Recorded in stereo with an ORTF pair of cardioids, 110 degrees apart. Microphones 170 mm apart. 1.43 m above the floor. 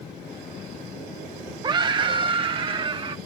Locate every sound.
1.6 s a scream: 25° right; by 3.2 s 30° right